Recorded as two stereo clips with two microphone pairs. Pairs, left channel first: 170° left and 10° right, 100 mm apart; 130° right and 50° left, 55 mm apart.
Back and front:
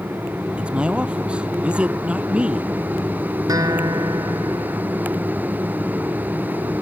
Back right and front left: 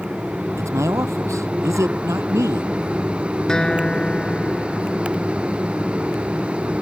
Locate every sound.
0.6 s a man speaking: 65° left
3.5 s a guitar: 55° right